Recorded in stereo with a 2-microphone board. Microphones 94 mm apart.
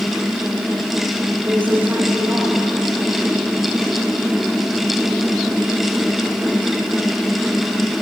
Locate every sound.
1.4 s a woman speaking: 20° right (ahead or behind), 3.5 m